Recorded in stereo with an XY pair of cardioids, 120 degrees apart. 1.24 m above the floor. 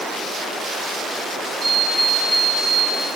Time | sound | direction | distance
1.6 | an alarm clock | 25° right | 5.5 m